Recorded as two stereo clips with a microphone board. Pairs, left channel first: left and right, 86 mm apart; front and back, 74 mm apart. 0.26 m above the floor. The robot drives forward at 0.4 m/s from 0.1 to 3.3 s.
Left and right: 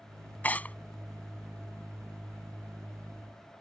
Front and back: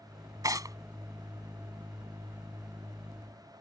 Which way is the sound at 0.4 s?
155° left.